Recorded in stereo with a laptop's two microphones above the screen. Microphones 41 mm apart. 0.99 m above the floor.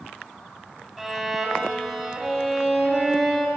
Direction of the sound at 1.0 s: 5° right (ahead or behind).